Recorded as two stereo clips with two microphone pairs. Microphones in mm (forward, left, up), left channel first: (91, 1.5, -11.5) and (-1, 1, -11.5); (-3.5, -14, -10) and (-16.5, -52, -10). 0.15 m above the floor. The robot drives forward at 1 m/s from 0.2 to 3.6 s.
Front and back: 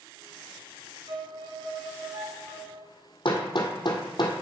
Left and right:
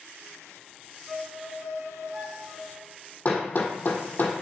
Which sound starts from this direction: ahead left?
Hammering, at 3.2 s.